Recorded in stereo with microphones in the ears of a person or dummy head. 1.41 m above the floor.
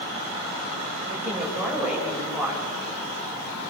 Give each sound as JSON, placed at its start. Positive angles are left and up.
{"t": 1.1, "sound": "a woman speaking", "side_deg": -5, "distance_m": 8.5}